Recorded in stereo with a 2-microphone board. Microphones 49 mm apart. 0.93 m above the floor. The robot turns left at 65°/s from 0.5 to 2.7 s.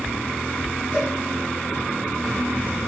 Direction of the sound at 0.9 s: 30° left (ahead or behind).